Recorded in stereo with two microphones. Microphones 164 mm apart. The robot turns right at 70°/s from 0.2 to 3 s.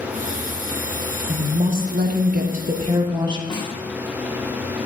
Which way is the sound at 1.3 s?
150° right.